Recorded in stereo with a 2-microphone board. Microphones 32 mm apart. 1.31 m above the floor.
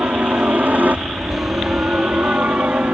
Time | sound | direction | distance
0.0 | a helicopter | 70° right (ahead or behind) | ?